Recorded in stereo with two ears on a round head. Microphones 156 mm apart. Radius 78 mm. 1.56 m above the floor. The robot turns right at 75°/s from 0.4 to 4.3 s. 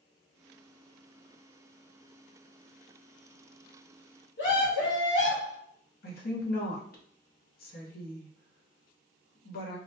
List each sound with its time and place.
4.4 s a scream: 70° left (ahead or behind), 1.2 m
6.0 s a woman speaking: 55° left (ahead or behind), 0.8 m